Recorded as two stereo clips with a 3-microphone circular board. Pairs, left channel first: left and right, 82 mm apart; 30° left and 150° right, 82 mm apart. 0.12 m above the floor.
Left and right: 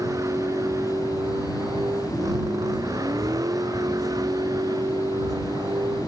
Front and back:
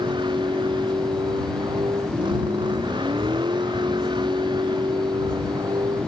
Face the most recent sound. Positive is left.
turn(degrees=-130)